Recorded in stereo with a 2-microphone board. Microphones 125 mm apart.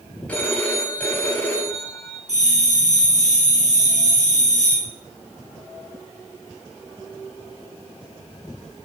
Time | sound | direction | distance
0.3 | a phone ringing | 10° left (ahead or behind) | 1.8 m
2.3 | a bell | 70° right (ahead or behind) | 4 m